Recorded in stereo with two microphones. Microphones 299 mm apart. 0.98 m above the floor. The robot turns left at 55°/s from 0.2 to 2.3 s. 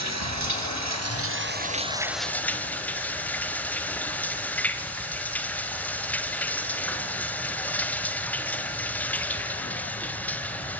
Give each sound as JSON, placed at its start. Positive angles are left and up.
{"t": 0.0, "sound": "running water", "azimuth_deg": -70, "distance_m": 1.4}